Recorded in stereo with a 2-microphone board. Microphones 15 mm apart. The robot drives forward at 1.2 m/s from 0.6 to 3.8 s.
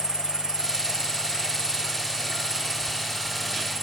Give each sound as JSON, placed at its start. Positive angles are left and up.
{"t": 0.0, "sound": "an insect", "side_deg": -70}